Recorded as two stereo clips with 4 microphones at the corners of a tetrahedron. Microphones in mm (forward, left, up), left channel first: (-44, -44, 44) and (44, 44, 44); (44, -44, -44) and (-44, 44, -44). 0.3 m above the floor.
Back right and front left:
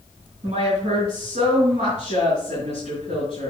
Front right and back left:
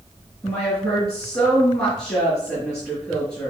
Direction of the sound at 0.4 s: 20° left.